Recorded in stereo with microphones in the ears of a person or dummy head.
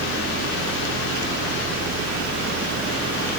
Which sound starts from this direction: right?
A fan, at 0.0 s.